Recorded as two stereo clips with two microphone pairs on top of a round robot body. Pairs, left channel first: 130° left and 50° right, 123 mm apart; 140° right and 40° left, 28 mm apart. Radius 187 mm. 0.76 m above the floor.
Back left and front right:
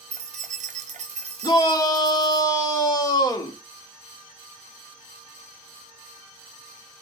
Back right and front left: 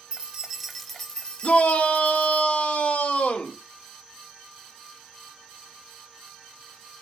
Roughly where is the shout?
Behind.